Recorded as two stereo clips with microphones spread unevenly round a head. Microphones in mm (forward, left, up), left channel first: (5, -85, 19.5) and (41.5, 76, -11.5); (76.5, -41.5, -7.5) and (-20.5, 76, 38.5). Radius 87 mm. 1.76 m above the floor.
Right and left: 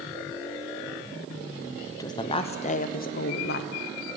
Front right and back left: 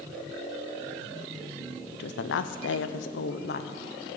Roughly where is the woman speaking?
Ahead right.